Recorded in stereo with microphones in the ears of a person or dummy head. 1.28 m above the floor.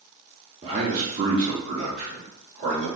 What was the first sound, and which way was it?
A man speaking, 25° right (ahead or behind).